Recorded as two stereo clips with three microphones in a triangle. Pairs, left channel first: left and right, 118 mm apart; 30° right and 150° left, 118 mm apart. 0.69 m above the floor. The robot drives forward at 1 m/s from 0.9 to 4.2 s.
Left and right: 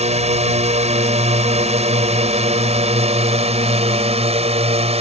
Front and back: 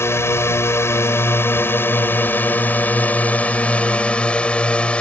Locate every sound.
0.0 s a drone: 95° right; by 5.0 s 110° right